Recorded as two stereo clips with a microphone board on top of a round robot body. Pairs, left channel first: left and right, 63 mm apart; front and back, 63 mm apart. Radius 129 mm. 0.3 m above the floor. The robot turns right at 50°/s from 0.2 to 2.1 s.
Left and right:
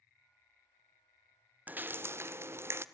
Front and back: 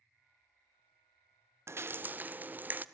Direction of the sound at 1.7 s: 150° right.